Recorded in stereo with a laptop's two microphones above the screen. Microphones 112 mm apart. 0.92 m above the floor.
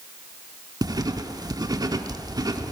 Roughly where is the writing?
Right.